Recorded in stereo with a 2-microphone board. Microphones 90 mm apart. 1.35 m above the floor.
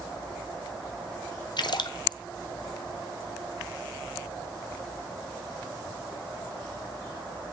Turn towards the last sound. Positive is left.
turn(degrees=60)  # may be behind; listen again after turning